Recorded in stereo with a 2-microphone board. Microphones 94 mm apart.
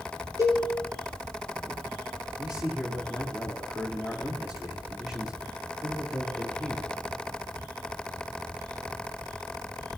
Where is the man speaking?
10° right (ahead or behind), 4 m.